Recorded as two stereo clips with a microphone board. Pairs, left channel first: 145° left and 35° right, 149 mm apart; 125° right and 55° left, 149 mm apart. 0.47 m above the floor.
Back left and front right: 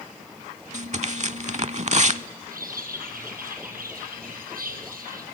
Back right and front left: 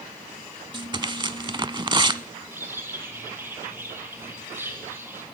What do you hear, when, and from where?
0.7 s tearing paper: straight ahead, 0.6 m
2.5 s a bird: 20° right, 4 m